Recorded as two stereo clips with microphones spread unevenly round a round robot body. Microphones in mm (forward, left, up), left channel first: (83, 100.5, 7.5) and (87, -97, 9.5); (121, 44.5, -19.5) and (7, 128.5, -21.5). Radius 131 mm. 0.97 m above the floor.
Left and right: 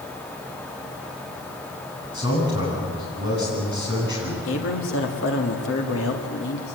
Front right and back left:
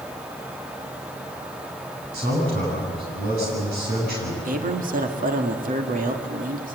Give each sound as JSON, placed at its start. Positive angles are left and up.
{"t": 2.1, "sound": "a man speaking", "azimuth_deg": 145, "distance_m": 9.5}
{"t": 4.5, "sound": "a man speaking", "azimuth_deg": 125, "distance_m": 2.0}